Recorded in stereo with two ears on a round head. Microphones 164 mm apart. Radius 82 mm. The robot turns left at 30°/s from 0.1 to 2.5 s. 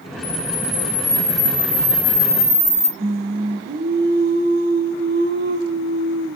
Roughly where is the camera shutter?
Left.